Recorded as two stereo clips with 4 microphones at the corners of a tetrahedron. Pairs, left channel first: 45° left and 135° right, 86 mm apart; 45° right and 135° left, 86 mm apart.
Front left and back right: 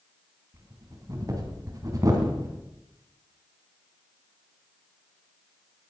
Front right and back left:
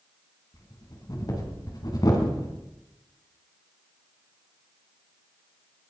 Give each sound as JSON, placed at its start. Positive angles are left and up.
{"t": 0.5, "sound": "breathing", "azimuth_deg": -85, "distance_m": 3.0}